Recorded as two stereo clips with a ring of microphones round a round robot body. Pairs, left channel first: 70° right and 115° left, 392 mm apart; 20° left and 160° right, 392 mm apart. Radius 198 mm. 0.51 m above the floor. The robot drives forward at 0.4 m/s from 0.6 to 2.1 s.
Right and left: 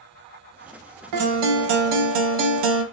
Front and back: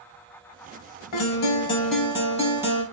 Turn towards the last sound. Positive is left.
turn(degrees=120)